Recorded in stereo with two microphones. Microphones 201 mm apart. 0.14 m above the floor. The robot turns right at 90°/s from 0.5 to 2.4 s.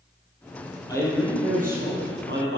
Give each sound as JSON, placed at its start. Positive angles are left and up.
{"t": 0.9, "sound": "a man speaking", "azimuth_deg": 160, "distance_m": 3.5}